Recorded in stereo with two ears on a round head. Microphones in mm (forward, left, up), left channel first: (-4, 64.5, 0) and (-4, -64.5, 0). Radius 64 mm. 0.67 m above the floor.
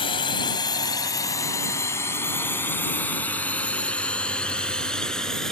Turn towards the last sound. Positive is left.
turn(degrees=5)  # may be behind; listen again after turning